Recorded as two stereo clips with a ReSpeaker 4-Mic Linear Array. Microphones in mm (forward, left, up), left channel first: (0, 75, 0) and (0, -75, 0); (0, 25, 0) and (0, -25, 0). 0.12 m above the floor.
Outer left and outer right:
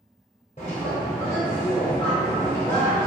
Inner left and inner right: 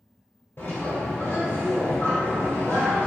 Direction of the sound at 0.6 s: 50° left (ahead or behind).